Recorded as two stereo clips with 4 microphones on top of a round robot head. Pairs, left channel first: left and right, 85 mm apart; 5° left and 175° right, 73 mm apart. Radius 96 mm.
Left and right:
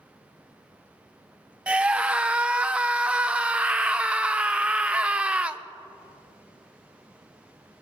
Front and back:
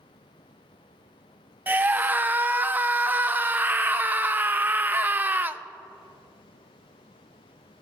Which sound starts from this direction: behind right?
A scream, at 1.7 s.